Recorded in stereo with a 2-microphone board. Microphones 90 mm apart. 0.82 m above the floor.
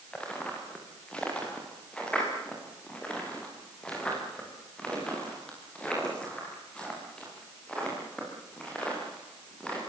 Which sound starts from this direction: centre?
Footsteps, at 0.1 s.